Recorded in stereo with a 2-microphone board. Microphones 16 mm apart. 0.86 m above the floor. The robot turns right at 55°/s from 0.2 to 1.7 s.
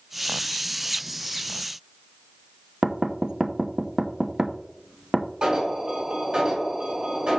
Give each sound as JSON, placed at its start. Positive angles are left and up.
{"t": 2.8, "sound": "knocking", "side_deg": -45, "distance_m": 0.7}
{"t": 5.4, "sound": "an alarm", "side_deg": -75, "distance_m": 3.5}